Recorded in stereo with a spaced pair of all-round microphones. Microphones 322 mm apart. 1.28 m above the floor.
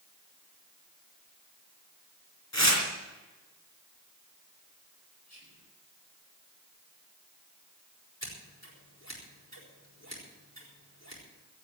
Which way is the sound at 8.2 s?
55° left (ahead or behind).